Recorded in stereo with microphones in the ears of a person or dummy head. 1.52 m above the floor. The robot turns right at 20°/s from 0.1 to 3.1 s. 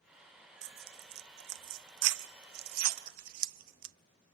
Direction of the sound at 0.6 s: 60° right (ahead or behind).